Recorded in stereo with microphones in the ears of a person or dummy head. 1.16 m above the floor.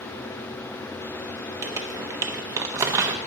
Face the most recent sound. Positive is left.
turn(degrees=-15)  # may be behind; listen again after turning